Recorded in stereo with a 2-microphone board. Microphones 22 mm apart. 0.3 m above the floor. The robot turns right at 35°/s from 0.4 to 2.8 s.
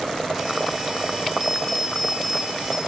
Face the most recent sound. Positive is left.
turn(degrees=-10)